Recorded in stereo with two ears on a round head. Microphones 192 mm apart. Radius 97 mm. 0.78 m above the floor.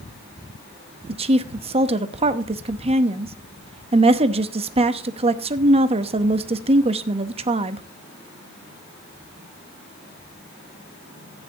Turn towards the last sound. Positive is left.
turn(degrees=-30)  # may be behind; listen again after turning